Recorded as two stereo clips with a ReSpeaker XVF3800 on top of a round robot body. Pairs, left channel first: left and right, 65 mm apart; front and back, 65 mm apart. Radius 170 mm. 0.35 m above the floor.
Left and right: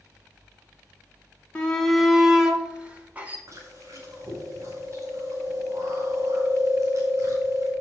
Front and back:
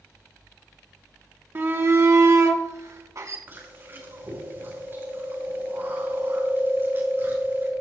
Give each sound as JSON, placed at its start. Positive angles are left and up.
{"t": 1.6, "sound": "a shout", "azimuth_deg": 150, "distance_m": 1.5}
{"t": 3.5, "sound": "chewing", "azimuth_deg": -125, "distance_m": 6.0}